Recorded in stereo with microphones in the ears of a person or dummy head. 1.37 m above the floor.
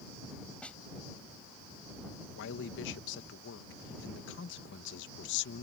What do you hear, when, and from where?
0.6 s a snare drum: 10° left (ahead or behind)
2.4 s a man speaking: 70° left (ahead or behind)